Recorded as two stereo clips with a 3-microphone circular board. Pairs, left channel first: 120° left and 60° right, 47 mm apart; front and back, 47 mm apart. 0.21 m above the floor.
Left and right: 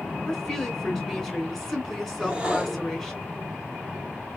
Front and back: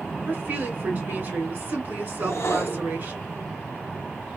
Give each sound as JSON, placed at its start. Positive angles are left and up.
{"t": 0.3, "sound": "a woman speaking", "azimuth_deg": -165, "distance_m": 1.8}
{"t": 2.2, "sound": "a whoosh", "azimuth_deg": 10, "distance_m": 1.1}